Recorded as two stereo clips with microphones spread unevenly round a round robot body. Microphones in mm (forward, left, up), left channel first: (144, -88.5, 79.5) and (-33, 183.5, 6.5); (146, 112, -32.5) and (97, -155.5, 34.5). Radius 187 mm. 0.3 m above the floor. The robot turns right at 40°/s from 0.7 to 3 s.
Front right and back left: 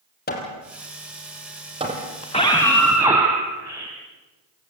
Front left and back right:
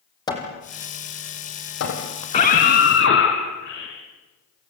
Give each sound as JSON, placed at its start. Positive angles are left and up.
{"t": 0.3, "sound": "hammering", "azimuth_deg": 5, "distance_m": 5.5}
{"t": 2.2, "sound": "a scream", "azimuth_deg": 15, "distance_m": 3.0}